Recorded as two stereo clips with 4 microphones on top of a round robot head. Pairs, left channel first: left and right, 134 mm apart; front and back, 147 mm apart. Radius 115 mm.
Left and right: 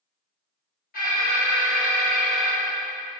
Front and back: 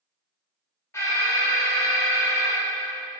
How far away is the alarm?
About 3.5 m.